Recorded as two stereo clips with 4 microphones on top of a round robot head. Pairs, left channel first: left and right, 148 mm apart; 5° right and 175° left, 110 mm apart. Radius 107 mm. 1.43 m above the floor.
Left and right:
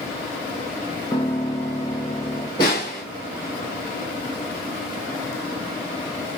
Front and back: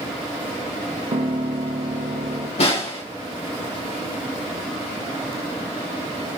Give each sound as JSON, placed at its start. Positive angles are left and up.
{"t": 1.1, "sound": "a piano", "azimuth_deg": 160, "distance_m": 0.8}
{"t": 2.6, "sound": "a snare drum", "azimuth_deg": 20, "distance_m": 2.0}